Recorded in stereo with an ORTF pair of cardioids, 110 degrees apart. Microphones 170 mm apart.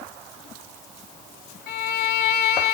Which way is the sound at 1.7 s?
70° left.